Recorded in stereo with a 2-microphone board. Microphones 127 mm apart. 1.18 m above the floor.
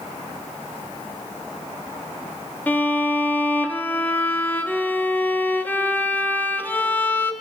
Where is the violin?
15° left (ahead or behind), 0.6 m.